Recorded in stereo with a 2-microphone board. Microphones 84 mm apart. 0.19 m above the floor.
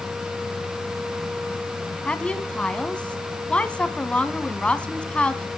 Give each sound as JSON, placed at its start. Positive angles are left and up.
{"t": 2.0, "sound": "a woman speaking", "side_deg": 15, "distance_m": 1.4}